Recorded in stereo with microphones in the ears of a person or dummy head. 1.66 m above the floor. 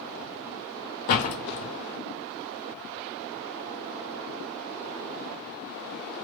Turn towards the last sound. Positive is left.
turn(degrees=50)  # may be behind; listen again after turning